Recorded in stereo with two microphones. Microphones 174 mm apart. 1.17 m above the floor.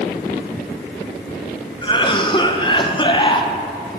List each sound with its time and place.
1.8 s a cough: 25° left (ahead or behind), 0.9 m